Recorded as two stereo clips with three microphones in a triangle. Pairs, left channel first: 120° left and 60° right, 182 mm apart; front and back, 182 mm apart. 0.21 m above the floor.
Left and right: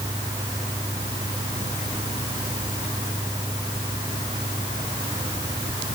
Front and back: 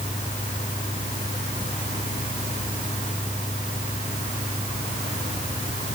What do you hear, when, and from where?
Only background noise.